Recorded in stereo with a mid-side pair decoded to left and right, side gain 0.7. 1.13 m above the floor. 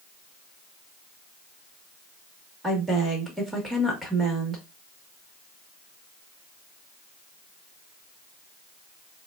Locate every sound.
2.6 s a woman speaking: 10° right, 1.7 m